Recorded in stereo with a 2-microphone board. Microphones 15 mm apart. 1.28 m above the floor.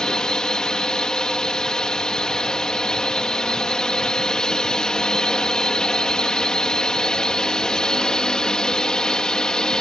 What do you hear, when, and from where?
0.0 s a drone: 70° left (ahead or behind)